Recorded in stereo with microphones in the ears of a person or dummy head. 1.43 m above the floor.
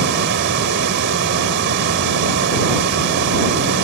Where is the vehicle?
60° right (ahead or behind).